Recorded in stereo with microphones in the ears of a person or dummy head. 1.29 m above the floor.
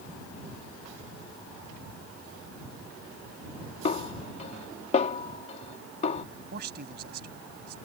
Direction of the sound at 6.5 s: 60° right (ahead or behind).